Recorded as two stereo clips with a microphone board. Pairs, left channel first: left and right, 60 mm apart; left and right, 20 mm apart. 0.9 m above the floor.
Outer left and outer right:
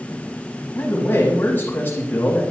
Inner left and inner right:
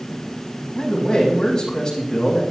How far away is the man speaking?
About 6 m.